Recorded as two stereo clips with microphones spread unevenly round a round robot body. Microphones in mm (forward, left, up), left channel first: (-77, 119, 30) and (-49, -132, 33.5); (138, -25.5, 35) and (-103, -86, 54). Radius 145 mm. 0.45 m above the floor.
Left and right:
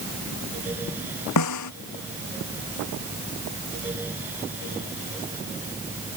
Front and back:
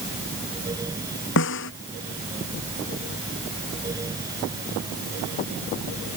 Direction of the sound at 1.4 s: 65° left.